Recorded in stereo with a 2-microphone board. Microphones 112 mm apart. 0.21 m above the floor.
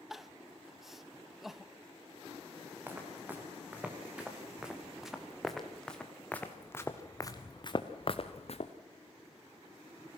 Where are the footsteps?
15° right (ahead or behind), 4 m; by 8.7 s 65° left (ahead or behind), 1.7 m.